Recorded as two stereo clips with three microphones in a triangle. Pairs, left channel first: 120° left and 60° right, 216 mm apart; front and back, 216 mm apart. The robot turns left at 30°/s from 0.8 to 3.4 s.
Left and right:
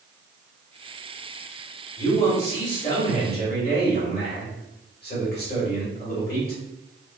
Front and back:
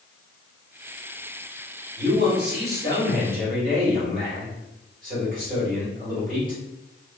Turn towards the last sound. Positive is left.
turn(degrees=145)